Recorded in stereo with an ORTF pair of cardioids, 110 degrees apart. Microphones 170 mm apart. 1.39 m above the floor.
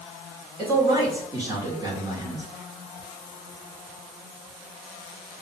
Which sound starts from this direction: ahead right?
A man speaking, at 0.6 s.